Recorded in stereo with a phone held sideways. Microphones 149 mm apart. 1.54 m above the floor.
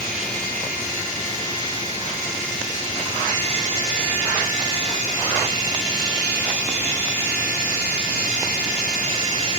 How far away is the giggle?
No giggle in this recording.